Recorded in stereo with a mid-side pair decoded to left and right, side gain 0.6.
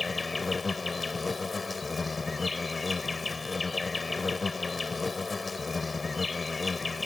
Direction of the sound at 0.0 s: 20° left.